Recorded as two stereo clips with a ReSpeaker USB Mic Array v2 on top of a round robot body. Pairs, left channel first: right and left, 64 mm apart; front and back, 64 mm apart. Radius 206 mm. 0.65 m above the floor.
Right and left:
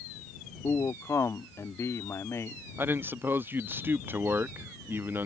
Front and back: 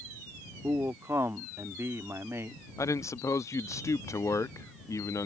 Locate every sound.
0.6 s a man speaking: 135° right
2.8 s a man speaking: 35° left